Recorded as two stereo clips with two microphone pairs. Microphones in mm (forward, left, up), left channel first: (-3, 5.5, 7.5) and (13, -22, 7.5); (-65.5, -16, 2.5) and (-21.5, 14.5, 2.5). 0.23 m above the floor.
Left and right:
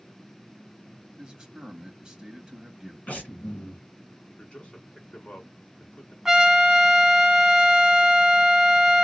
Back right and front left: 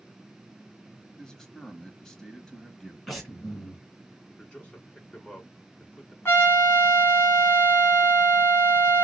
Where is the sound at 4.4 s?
155° left, 2.5 m.